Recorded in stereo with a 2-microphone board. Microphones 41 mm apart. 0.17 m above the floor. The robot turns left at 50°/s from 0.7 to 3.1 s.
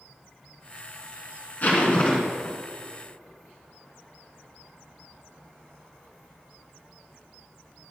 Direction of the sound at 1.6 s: 65° left.